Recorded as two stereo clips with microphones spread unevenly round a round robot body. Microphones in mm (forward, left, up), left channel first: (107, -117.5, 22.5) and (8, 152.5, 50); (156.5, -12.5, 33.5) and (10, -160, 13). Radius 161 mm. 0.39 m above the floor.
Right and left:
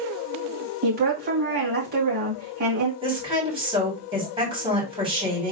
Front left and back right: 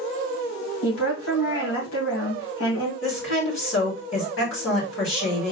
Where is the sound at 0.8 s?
55° left, 2.5 m.